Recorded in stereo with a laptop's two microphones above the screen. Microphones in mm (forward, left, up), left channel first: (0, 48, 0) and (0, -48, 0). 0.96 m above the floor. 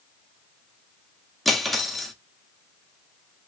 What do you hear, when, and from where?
1.4 s cutlery clinking: centre (ahead or behind), 0.8 m